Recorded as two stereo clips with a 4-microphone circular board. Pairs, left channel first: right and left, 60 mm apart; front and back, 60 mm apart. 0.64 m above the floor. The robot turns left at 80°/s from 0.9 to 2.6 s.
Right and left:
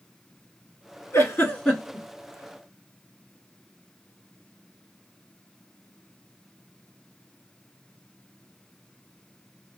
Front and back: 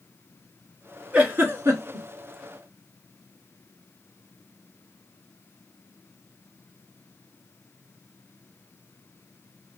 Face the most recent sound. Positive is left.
turn(degrees=130)